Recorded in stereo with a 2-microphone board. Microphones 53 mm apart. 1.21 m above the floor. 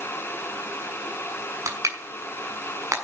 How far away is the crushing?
About 6 m.